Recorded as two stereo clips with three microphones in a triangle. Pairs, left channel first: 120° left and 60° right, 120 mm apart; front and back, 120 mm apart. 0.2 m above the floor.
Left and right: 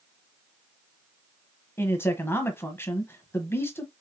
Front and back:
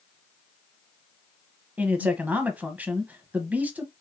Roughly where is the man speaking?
Behind left.